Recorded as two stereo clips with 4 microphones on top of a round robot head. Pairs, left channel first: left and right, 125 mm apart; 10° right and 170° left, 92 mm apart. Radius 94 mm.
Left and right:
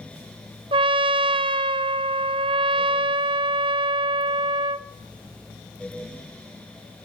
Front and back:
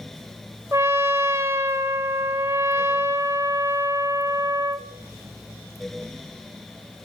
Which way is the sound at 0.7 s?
120° right.